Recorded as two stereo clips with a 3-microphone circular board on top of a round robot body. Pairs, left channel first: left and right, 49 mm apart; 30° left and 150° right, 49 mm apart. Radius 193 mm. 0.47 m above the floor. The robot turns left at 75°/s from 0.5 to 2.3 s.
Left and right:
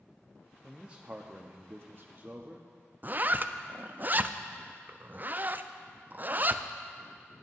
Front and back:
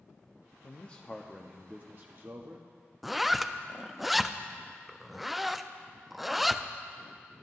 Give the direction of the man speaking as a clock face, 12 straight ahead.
12 o'clock.